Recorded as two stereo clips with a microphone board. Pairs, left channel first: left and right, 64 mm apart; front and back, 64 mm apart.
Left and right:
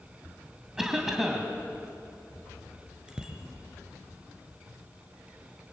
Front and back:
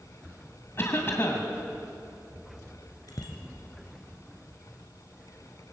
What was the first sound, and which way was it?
A cough, 10° right.